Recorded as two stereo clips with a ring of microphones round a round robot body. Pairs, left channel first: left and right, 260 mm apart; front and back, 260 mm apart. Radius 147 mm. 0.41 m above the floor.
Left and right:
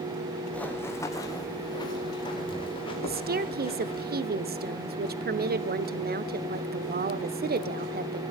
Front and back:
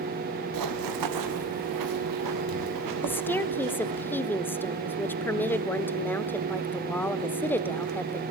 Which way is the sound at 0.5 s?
175° left.